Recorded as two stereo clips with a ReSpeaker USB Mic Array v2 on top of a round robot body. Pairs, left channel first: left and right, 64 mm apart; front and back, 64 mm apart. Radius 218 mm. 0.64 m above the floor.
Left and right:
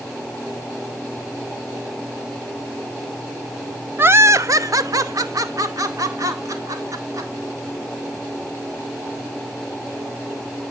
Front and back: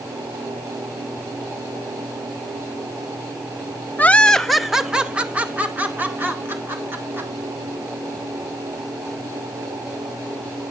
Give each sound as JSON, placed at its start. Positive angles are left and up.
{"t": 4.0, "sound": "laughter", "azimuth_deg": -50, "distance_m": 1.0}